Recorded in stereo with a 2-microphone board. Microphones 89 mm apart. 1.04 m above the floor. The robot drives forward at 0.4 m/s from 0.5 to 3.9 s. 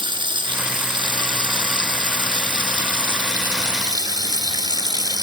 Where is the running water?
65° right (ahead or behind), 2.0 m; by 5.2 s 50° right (ahead or behind), 2.5 m.